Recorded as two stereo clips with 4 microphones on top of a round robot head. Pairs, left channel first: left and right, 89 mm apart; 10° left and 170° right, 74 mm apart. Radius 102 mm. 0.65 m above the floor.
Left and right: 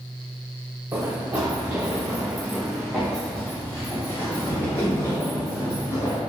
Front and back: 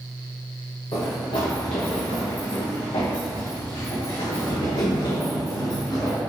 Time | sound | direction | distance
0.9 | running footsteps | 25° right | 2.5 m